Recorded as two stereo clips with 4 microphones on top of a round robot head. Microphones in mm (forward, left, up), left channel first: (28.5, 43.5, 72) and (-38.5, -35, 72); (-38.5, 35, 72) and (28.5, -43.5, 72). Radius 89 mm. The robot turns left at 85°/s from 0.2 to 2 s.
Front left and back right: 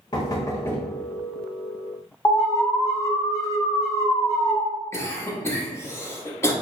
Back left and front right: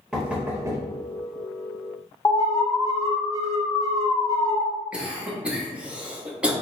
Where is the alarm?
95° left, 1.1 m.